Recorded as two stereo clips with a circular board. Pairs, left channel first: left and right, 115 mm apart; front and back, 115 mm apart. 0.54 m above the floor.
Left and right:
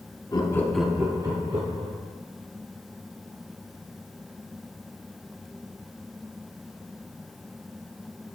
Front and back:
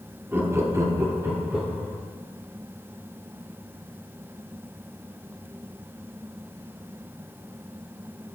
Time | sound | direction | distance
0.3 | laughter | 115° left | 1.0 m